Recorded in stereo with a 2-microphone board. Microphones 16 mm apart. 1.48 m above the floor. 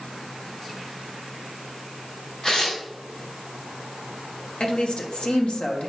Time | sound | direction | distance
2.4 | tearing paper | 55° left (ahead or behind) | 4 m
4.6 | a woman speaking | 85° left | 1.3 m